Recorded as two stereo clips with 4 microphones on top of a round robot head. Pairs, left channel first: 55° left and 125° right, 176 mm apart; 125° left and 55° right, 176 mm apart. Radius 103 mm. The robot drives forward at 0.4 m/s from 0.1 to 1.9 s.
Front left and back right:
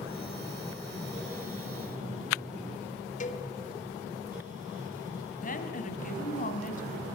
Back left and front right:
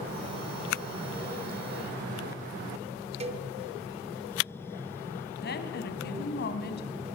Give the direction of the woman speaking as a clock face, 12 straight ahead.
9 o'clock.